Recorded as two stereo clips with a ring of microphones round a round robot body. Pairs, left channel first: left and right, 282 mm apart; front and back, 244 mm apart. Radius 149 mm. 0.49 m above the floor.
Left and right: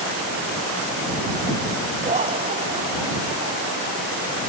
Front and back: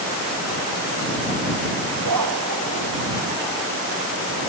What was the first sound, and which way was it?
Laughter, 160° right.